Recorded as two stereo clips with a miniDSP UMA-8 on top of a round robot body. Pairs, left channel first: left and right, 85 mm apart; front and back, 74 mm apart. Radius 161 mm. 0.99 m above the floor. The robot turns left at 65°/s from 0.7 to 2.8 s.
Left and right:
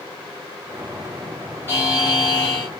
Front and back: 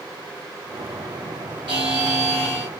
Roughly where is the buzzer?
Behind left.